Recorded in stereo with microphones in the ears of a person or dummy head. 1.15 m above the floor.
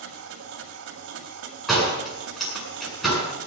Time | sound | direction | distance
0.0 | a machine running | 70° right (ahead or behind) | 1.9 m
1.7 | a door slam | 5° right (ahead or behind) | 8.5 m